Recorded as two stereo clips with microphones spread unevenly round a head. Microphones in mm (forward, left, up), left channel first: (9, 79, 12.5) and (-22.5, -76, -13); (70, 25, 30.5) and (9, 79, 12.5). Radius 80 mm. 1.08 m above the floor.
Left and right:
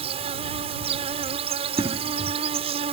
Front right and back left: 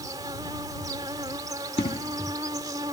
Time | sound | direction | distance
0.0 | an insect | 155° right | ?
1.8 | an explosion | 35° right | ?